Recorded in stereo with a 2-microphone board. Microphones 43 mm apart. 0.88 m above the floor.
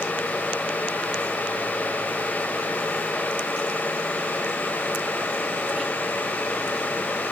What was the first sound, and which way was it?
Only background noise.